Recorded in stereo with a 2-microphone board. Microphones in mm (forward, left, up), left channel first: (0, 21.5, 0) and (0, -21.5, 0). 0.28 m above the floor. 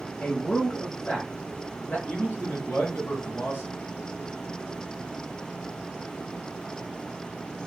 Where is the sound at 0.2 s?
35° left (ahead or behind), 1.1 m.